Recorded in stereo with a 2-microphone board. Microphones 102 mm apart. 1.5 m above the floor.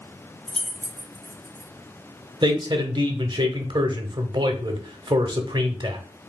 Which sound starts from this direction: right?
A man speaking, at 2.4 s.